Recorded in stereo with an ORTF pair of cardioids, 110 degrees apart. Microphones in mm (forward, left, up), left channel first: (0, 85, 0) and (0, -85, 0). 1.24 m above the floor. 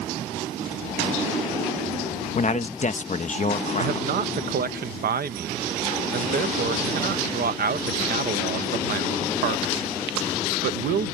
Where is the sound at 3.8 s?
60° right.